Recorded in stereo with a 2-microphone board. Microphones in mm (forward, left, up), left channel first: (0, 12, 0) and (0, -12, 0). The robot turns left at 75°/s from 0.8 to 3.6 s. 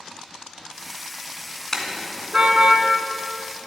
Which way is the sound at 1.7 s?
15° left (ahead or behind).